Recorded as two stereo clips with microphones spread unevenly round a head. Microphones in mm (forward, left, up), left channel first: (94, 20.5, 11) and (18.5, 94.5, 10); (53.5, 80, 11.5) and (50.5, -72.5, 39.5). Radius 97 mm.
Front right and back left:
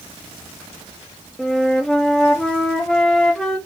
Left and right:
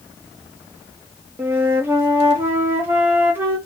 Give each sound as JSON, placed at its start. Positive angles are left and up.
{"t": 1.4, "sound": "a flute", "azimuth_deg": -130, "distance_m": 0.6}